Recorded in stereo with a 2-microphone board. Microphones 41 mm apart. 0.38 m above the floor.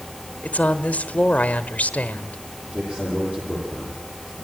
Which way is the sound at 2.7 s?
30° right (ahead or behind).